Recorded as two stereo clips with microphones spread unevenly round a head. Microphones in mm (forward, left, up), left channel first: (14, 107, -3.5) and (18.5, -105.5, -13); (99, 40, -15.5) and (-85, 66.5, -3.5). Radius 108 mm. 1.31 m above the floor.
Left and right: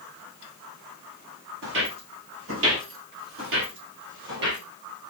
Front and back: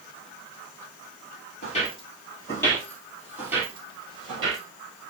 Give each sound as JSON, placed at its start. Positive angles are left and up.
{"t": 1.6, "sound": "footsteps", "azimuth_deg": -65, "distance_m": 2.5}